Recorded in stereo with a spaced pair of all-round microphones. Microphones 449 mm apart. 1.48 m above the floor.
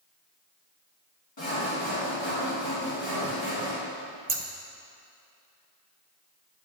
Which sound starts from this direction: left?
Sawing, at 1.4 s.